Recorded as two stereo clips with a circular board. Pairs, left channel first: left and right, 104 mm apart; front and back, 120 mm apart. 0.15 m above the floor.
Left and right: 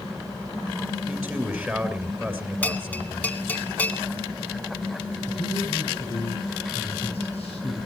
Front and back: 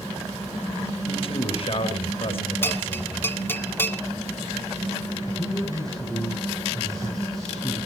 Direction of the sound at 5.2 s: 85° left.